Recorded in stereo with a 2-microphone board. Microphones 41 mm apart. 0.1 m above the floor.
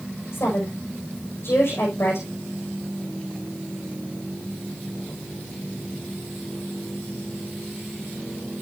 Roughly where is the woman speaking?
Left.